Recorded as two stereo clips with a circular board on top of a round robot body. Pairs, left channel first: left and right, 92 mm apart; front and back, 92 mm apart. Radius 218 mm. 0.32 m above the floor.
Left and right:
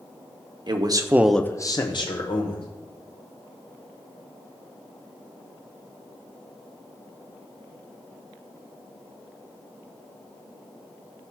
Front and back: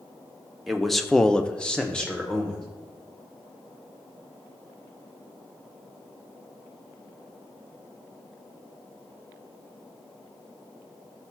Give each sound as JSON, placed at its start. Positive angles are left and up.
{"t": 0.7, "sound": "a man speaking", "azimuth_deg": -90, "distance_m": 1.2}